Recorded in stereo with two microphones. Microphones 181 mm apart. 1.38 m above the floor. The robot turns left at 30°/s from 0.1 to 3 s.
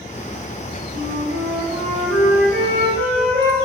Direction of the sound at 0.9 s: 90° right.